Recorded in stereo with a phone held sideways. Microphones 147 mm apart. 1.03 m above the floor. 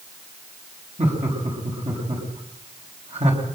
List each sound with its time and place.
1.0 s laughter: 45° right (ahead or behind), 6.5 m